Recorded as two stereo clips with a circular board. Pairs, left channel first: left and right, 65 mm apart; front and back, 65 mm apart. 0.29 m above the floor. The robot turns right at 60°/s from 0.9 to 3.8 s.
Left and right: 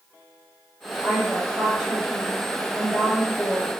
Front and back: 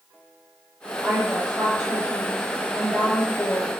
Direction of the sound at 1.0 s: 155° right.